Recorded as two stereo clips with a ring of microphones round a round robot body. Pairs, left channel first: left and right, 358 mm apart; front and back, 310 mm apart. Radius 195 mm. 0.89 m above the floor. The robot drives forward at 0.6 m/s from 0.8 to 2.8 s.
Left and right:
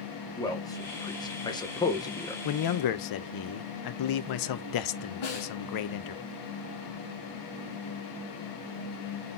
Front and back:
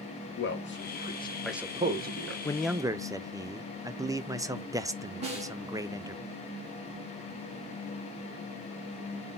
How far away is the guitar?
No guitar in this recording.